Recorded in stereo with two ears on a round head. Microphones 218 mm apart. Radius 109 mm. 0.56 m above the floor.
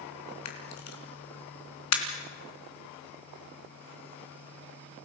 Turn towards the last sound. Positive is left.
turn(degrees=85)